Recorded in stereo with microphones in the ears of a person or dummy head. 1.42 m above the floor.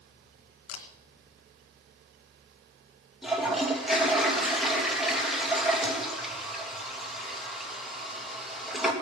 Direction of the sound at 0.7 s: 65° left (ahead or behind).